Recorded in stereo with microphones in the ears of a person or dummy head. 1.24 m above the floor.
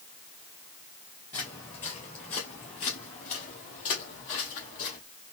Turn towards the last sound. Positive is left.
turn(degrees=45)  # may be behind; listen again after turning